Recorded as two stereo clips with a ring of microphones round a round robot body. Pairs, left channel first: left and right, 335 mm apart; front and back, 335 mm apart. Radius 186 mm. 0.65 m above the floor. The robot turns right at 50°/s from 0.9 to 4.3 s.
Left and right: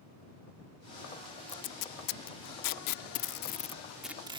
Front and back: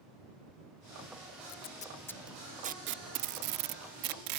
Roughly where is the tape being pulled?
Ahead left.